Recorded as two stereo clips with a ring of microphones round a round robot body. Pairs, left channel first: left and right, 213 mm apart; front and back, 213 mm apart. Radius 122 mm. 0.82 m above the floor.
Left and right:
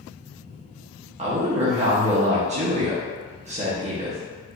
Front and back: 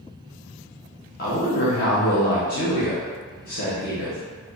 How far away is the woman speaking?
About 1.0 m.